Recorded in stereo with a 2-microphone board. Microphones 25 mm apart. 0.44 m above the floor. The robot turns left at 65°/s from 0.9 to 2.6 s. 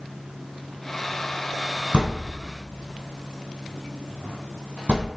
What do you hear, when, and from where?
1.9 s a thud: 50° right (ahead or behind), 1.3 m; by 5.1 s 75° right (ahead or behind), 1.3 m